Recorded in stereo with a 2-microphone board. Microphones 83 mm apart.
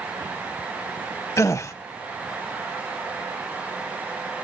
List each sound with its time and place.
1.4 s a gasp: 40° left (ahead or behind), 0.7 m